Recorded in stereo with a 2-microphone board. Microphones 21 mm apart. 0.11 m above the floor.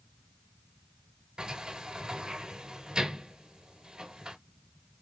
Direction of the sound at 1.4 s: 45° right (ahead or behind).